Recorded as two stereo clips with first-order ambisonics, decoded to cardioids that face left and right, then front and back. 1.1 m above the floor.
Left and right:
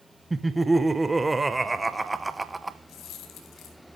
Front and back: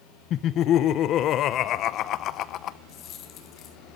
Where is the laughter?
10° right, 0.8 m.